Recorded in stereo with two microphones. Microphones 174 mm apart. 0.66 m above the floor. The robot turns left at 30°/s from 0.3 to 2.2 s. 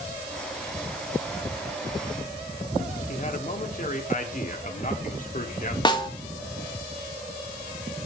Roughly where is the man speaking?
Left.